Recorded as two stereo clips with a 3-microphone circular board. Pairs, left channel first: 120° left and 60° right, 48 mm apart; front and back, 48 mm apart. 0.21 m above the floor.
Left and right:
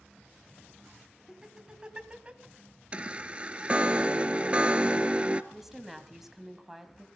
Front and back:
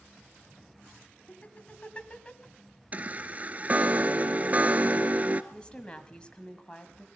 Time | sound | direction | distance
1.3 | laughter | 10° left | 1.3 m
2.9 | a chime | 125° right | 0.6 m
5.5 | a woman speaking | 15° left | 1.2 m